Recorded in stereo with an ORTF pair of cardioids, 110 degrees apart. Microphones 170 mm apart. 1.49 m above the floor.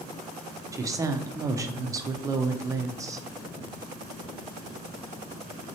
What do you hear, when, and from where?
0.7 s a woman speaking: 20° right, 0.5 m